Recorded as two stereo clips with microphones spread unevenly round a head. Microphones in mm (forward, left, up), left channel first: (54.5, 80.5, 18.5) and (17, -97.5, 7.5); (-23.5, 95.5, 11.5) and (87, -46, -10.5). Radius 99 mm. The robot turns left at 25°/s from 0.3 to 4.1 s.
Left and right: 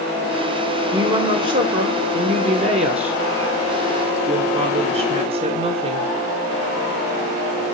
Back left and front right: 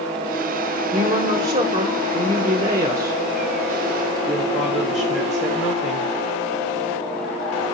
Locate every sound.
0.9 s a woman speaking: 50° right, 0.7 m; by 6.1 s 130° right, 0.7 m